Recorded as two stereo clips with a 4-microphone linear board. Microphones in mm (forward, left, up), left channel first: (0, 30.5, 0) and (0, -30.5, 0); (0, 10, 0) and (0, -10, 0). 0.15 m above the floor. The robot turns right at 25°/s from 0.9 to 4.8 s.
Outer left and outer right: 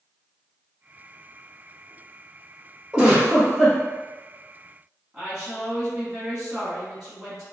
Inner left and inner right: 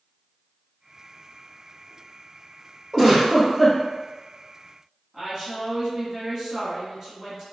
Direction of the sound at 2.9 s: 15° right (ahead or behind).